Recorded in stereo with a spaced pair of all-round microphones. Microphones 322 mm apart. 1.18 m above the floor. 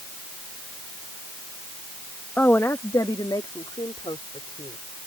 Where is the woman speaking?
5° left (ahead or behind); by 4.8 s 15° left (ahead or behind).